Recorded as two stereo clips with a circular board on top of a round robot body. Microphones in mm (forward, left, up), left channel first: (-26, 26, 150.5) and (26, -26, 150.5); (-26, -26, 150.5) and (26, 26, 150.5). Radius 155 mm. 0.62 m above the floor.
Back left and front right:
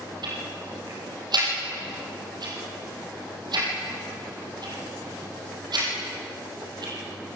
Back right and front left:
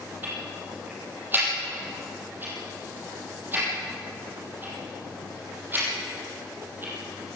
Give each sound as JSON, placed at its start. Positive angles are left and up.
{"t": 0.2, "sound": "ticking", "azimuth_deg": -20, "distance_m": 5.5}